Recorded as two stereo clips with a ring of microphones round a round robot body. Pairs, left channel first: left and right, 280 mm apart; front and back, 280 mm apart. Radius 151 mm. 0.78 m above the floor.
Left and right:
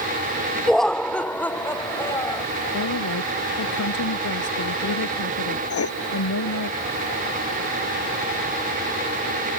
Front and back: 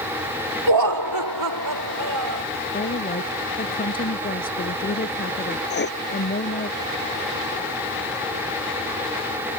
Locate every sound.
0.7 s laughter: straight behind; by 2.4 s 170° left
2.7 s a woman speaking: 60° left
5.7 s writing: 55° left